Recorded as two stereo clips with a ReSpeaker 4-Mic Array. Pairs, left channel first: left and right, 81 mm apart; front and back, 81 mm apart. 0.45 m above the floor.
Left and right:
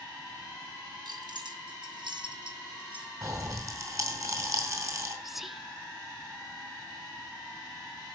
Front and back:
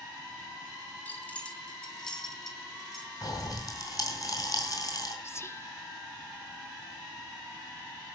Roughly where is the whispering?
Ahead.